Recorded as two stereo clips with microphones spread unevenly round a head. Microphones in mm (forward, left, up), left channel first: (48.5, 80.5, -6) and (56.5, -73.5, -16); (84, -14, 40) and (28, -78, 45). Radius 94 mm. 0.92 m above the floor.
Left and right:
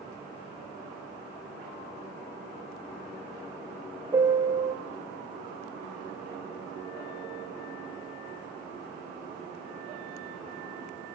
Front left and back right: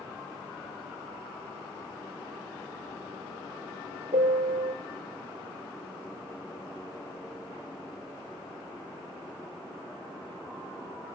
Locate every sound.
4.1 s a piano: 160° right, 1.8 m